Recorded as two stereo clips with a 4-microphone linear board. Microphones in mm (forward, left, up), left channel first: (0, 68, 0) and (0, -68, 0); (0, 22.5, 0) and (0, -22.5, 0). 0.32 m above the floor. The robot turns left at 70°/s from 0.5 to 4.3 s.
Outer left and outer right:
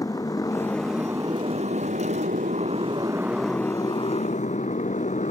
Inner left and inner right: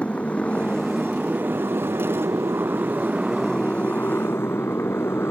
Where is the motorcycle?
25° left; by 5.3 s 120° left.